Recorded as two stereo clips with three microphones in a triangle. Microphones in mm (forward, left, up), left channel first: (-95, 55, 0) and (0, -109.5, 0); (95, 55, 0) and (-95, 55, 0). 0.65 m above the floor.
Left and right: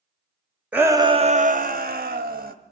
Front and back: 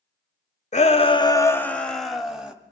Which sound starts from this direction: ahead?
A shout, at 0.7 s.